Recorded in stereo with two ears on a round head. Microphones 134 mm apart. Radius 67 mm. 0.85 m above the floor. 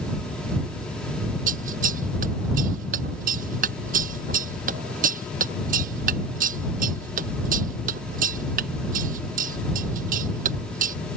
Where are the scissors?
60° right (ahead or behind).